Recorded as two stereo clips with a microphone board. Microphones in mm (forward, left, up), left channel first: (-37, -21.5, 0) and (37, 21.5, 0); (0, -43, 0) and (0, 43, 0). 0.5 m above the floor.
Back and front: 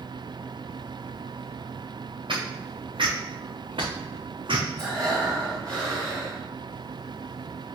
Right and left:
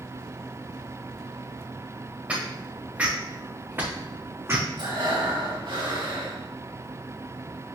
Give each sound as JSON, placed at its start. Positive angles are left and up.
{"t": 2.3, "sound": "footsteps", "azimuth_deg": 15, "distance_m": 2.5}
{"t": 4.8, "sound": "breathing", "azimuth_deg": 75, "distance_m": 3.0}